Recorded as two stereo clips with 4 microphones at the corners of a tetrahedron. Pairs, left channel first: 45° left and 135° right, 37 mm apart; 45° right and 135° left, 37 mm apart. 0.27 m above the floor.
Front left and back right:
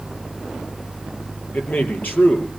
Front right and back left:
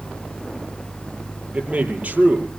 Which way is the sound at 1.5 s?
90° left.